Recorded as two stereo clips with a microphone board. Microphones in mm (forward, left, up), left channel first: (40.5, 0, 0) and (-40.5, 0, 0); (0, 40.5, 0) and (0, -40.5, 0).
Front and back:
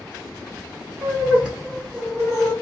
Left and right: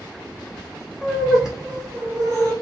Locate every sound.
1.0 s laughter: 165° left, 1.3 m; by 2.5 s 95° right, 1.6 m